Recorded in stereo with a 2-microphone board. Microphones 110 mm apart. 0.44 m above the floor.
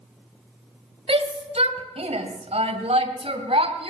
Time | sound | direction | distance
1.1 | a shout | 60° right (ahead or behind) | 2 m